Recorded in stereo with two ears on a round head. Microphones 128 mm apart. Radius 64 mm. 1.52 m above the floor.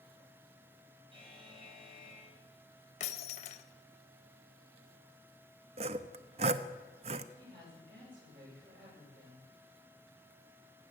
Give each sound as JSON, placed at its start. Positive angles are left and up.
{"t": 1.1, "sound": "a buzzer", "side_deg": -35, "distance_m": 4.5}
{"t": 3.0, "sound": "breaking glass", "side_deg": 50, "distance_m": 1.0}
{"t": 5.8, "sound": "sawing", "side_deg": -45, "distance_m": 0.6}
{"t": 7.4, "sound": "a woman speaking", "side_deg": -75, "distance_m": 8.5}